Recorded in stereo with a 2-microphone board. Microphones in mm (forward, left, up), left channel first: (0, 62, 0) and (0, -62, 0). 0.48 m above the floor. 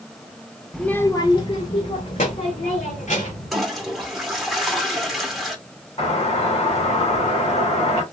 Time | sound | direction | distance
0.7 | a child speaking | centre (ahead or behind) | 0.7 m
3.5 | a toilet flushing | centre (ahead or behind) | 1.4 m
6.0 | a doorbell | 50° left (ahead or behind) | 3 m